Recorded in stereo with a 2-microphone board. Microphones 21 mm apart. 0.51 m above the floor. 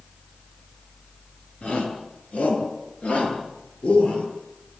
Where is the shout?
80° left, 8.5 m; by 4.2 s 75° left (ahead or behind), 10.5 m.